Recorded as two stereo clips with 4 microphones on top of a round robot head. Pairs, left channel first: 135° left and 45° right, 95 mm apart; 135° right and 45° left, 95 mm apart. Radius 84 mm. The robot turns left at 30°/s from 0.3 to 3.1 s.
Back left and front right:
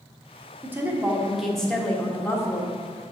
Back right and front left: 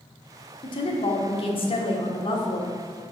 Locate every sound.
0.6 s a woman speaking: 110° right, 1.4 m; by 2.8 s 175° right, 1.4 m